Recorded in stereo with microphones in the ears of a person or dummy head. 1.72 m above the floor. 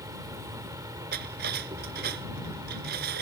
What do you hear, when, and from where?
0.0 s an insect: 20° right (ahead or behind)
1.1 s cutlery clinking: 50° right (ahead or behind)